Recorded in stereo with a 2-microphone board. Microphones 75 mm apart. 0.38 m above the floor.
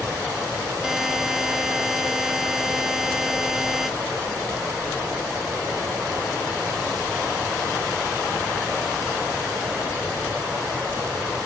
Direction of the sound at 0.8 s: 5° right (ahead or behind).